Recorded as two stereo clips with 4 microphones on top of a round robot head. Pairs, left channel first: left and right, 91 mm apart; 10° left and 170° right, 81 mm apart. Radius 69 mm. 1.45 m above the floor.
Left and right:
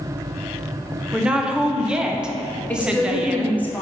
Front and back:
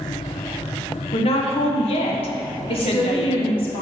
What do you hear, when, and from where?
1.1 s a woman speaking: 10° right, 1.2 m
2.7 s a woman speaking: 15° left, 2.5 m